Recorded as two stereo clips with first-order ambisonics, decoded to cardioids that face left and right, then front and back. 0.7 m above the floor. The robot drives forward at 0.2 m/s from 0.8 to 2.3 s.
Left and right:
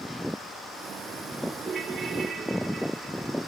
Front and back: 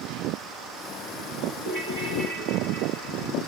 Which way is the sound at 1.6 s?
160° right.